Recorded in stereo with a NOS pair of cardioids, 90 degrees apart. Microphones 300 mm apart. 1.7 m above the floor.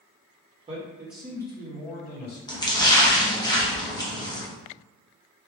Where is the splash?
15° left, 1.0 m.